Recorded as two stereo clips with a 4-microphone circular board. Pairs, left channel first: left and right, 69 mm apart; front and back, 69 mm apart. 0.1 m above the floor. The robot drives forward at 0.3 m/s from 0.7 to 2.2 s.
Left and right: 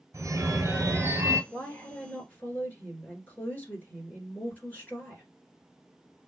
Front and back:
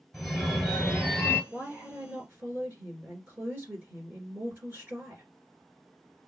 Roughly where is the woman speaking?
Behind left.